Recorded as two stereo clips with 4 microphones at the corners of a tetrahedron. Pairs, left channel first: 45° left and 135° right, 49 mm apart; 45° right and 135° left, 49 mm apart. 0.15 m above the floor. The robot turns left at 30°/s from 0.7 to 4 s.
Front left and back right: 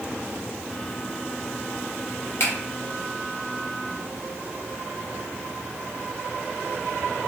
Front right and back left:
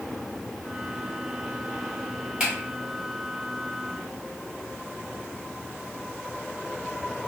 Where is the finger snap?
65° left, 1.9 m; by 2.5 s 60° left, 1.9 m.